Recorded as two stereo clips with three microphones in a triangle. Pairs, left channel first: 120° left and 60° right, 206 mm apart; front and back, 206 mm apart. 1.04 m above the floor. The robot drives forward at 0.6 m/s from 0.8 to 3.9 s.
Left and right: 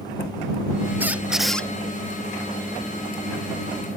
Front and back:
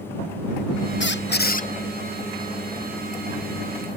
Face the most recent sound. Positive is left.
turn(degrees=170)